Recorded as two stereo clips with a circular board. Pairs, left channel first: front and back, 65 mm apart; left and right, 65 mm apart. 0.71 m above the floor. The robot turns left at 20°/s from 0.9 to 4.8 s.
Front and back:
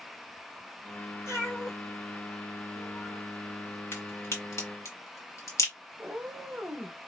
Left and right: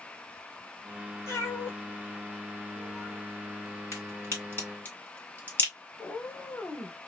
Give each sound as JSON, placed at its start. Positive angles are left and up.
{"t": 1.3, "sound": "a cat meowing", "azimuth_deg": 45, "distance_m": 1.5}
{"t": 3.9, "sound": "a crack", "azimuth_deg": 45, "distance_m": 2.0}
{"t": 6.0, "sound": "a cat meowing", "azimuth_deg": 125, "distance_m": 0.8}